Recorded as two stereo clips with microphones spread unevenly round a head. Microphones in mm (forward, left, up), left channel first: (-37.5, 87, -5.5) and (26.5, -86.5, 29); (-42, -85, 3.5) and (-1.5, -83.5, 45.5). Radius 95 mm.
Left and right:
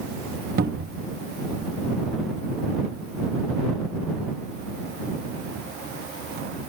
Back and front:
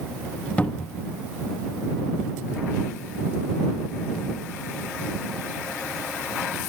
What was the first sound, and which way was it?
A cupboard door, 95° right.